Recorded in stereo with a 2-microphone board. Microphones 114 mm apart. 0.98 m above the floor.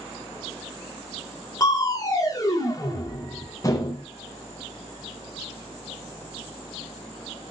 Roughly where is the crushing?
Left.